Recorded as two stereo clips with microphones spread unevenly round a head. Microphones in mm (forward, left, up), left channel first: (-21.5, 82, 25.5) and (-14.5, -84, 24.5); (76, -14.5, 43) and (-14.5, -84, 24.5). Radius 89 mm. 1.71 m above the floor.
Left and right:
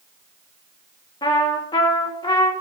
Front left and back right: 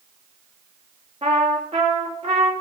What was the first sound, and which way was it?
A trumpet, 150° left.